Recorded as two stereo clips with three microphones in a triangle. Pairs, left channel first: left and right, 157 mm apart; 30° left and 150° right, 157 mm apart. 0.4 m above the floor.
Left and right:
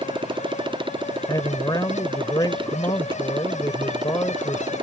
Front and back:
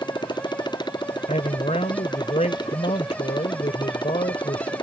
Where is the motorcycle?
30° right.